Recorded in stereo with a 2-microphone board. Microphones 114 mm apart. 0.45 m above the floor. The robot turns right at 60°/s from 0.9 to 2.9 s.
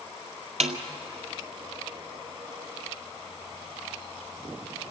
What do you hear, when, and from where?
0.6 s a snare drum: 75° right (ahead or behind), 1.7 m